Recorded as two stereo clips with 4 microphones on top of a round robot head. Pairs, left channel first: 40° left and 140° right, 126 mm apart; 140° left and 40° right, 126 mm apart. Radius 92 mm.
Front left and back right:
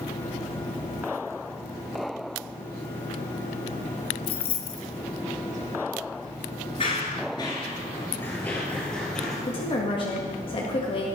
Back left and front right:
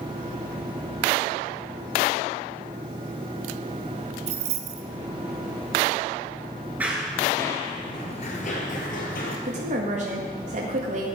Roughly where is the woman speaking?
Ahead.